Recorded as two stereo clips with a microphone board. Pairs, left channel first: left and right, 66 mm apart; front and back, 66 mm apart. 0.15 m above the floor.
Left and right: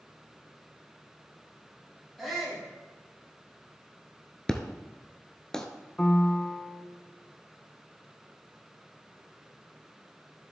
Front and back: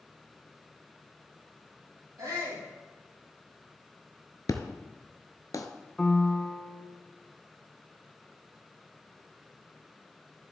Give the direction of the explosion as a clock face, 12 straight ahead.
12 o'clock.